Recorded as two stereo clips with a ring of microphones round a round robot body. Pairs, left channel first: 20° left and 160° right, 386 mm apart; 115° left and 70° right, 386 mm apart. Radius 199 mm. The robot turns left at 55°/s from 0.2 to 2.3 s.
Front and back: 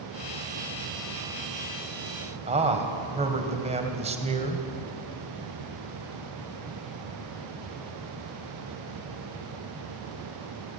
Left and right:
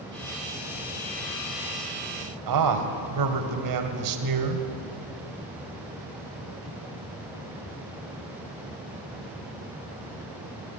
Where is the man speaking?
85° right, 2.5 m.